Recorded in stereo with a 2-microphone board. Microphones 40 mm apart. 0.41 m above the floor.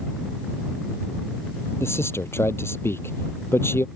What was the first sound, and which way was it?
A man speaking, 80° left.